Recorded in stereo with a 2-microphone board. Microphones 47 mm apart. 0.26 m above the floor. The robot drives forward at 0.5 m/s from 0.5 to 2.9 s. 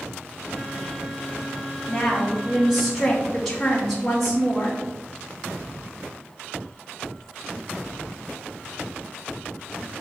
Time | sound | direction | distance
1.9 | a woman speaking | centre (ahead or behind) | 1.2 m